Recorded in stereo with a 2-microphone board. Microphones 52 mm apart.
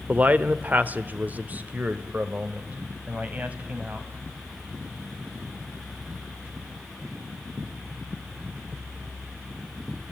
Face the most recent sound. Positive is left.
turn(degrees=-30)  # may be behind; listen again after turning